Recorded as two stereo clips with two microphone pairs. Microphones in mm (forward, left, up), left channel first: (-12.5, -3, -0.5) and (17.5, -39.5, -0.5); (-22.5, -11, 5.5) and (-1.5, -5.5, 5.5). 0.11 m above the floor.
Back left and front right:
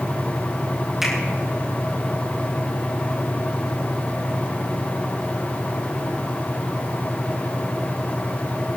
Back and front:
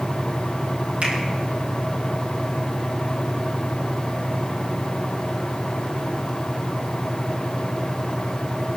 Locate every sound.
1.0 s a finger snap: 30° left, 4 m